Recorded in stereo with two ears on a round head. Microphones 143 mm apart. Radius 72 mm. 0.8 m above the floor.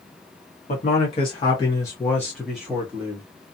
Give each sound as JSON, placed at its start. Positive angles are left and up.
{"t": 0.7, "sound": "a man speaking", "side_deg": 45, "distance_m": 1.2}